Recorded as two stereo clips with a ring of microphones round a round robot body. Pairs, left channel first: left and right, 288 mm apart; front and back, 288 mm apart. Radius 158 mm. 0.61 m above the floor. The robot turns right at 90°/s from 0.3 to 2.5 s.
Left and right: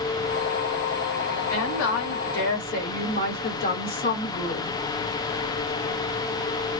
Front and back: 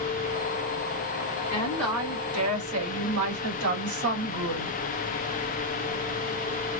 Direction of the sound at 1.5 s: 60° left.